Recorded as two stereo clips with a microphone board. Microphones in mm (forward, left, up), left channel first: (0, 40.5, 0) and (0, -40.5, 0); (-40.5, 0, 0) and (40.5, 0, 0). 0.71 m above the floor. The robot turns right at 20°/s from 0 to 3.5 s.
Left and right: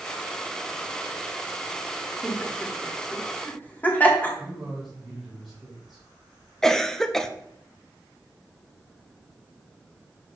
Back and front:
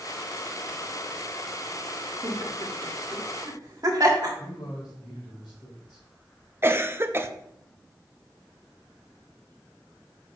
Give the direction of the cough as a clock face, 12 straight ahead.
11 o'clock.